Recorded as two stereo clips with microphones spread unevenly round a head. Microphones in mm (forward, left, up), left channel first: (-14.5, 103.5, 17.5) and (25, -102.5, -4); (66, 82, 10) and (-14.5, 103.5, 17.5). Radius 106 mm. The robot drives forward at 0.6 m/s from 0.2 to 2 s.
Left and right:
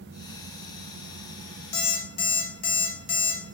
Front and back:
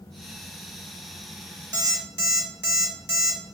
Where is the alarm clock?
150° left, 1.0 m; by 3.4 s 155° left, 1.1 m.